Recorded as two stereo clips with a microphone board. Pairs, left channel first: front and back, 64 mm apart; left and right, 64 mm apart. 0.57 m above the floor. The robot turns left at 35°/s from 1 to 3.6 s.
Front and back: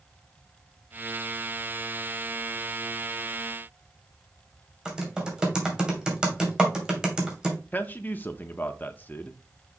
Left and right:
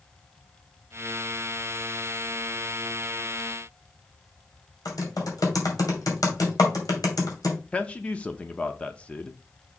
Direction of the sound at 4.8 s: 100° left.